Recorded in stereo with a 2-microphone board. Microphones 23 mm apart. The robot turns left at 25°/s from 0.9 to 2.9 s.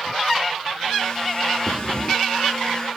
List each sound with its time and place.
1.7 s breathing: 35° left (ahead or behind), 0.5 m